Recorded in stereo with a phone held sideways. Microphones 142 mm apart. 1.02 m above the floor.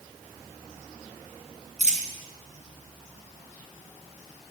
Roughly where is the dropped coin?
Right.